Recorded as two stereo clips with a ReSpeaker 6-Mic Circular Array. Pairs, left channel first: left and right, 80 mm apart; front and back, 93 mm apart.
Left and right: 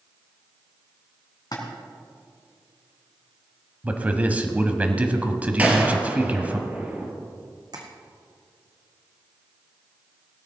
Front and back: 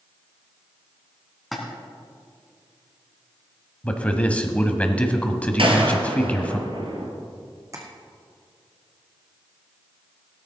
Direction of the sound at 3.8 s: 50° right.